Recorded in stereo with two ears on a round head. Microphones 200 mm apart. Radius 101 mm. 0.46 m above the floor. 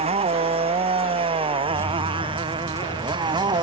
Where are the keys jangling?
10° right (ahead or behind).